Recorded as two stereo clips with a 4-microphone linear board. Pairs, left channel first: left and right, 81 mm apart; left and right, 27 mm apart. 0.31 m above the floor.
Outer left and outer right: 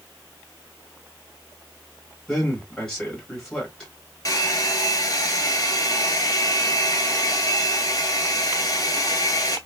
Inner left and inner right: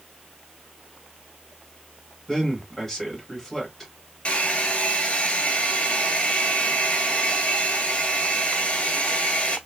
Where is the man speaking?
10° left (ahead or behind), 2 m.